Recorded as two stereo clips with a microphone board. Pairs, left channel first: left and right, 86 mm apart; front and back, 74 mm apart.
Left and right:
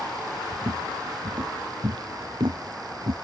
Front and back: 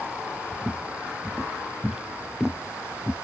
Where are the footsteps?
110° right; by 3.1 s 90° right.